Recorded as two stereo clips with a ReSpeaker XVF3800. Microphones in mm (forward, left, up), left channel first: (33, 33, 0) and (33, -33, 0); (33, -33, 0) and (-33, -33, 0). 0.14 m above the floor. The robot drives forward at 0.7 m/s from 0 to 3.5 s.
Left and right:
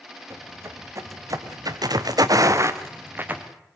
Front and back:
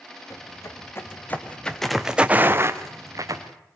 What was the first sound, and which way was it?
Footsteps, 40° right.